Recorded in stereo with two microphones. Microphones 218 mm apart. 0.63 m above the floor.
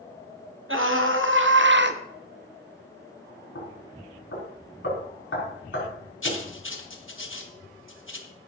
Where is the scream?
65° right (ahead or behind), 2.5 m; by 2.0 s 50° right (ahead or behind), 1.2 m.